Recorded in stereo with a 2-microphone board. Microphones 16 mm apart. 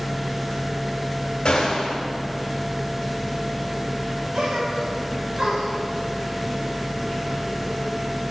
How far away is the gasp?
About 2 m.